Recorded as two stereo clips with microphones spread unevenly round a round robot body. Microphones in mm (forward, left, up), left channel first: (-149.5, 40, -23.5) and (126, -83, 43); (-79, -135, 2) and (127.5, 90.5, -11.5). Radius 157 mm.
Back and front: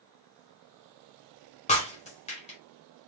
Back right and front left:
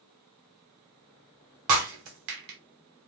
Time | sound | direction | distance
1.7 | breaking glass | 80° left | 1.3 m